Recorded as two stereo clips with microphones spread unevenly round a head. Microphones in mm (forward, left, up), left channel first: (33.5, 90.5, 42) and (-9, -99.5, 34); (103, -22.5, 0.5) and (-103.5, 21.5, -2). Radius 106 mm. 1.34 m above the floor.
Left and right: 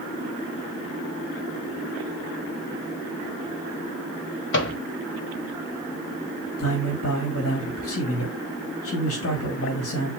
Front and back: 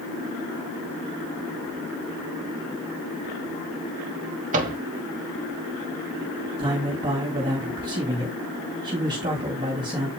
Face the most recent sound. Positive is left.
turn(degrees=100)